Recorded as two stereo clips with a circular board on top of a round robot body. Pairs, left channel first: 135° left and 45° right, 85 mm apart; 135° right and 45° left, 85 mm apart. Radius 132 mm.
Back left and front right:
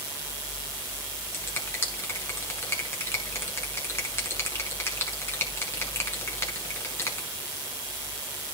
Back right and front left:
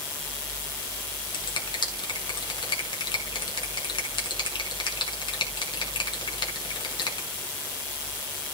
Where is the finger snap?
165° right, 5.5 m.